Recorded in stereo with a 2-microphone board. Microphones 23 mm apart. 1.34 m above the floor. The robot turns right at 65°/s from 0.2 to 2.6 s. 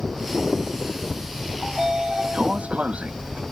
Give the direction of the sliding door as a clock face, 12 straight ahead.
6 o'clock.